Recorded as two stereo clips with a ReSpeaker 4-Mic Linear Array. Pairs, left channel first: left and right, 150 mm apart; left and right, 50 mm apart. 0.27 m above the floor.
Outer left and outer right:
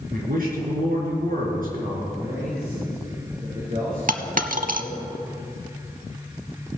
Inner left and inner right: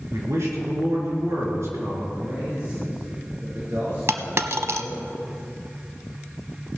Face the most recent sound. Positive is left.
turn(degrees=-65)  # may be behind; listen again after turning